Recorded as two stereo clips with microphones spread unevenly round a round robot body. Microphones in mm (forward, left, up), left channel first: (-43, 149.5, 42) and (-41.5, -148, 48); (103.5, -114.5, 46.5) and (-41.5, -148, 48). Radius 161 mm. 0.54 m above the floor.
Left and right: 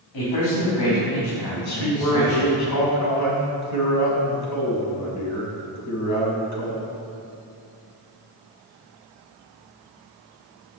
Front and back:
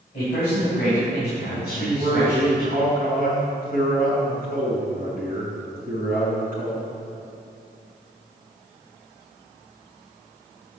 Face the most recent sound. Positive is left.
turn(degrees=120)